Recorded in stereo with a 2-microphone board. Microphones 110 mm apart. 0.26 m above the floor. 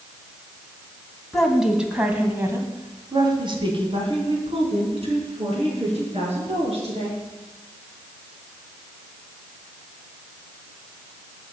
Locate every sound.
1.3 s a woman speaking: centre (ahead or behind), 2.5 m; by 7.2 s 70° right (ahead or behind), 5 m